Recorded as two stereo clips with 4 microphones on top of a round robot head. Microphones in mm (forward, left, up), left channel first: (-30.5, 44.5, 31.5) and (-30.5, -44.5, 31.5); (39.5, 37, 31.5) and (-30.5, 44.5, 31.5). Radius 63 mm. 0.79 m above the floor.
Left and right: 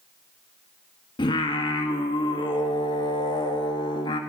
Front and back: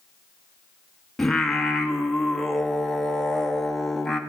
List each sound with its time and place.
1.2 s singing: 80° left, 1.8 m